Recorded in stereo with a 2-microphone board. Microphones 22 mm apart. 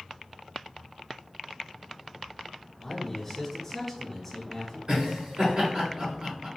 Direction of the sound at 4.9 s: 45° right (ahead or behind).